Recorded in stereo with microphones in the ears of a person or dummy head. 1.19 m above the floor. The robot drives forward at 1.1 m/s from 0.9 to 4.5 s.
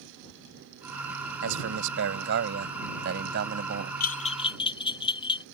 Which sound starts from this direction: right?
A man speaking, at 1.4 s.